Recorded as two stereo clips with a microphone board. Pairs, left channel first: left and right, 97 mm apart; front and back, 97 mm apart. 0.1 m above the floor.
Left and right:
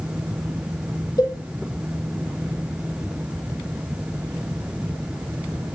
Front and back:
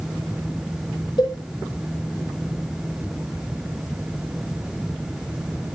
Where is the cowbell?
40° left, 3.5 m.